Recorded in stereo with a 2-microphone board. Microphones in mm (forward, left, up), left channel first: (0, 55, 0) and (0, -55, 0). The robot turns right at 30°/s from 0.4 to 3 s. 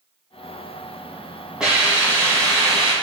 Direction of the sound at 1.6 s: 170° right.